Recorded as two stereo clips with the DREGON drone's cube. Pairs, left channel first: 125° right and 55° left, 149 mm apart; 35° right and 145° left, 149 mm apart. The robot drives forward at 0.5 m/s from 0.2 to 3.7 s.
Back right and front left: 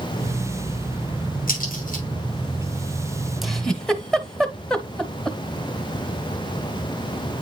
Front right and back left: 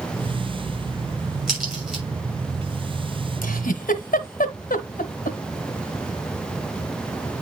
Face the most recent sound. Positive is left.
turn(degrees=-40)